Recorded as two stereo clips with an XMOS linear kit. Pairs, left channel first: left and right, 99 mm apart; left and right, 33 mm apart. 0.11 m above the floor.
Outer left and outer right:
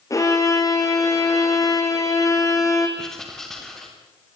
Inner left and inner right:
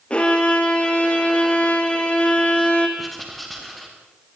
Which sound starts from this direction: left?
A violin, at 0.1 s.